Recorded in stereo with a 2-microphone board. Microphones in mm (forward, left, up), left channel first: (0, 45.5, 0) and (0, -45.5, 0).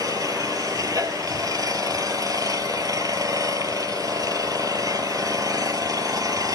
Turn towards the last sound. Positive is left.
turn(degrees=-40)  # may be behind; listen again after turning